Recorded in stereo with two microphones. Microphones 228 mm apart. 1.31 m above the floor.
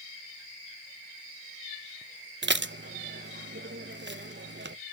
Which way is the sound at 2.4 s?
50° right (ahead or behind).